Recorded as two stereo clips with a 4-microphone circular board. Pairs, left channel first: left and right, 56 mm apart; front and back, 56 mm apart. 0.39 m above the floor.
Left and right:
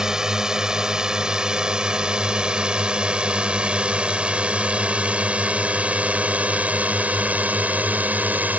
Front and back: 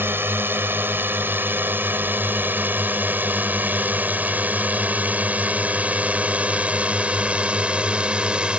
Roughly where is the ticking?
I don't hear ticking.